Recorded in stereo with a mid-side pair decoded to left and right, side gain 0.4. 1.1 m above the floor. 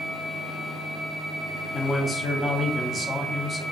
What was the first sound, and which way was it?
A man speaking, 40° left.